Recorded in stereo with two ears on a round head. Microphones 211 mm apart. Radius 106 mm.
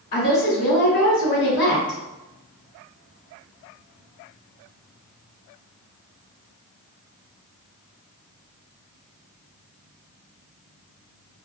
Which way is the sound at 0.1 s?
40° left (ahead or behind).